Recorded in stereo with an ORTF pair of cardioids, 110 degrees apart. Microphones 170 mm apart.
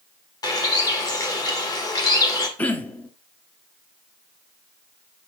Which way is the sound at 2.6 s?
10° left.